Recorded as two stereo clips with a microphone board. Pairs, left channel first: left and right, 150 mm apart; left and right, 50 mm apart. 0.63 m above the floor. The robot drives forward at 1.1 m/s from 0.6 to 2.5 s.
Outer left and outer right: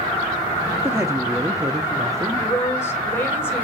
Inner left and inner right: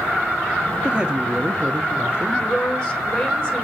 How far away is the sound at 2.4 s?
About 3 m.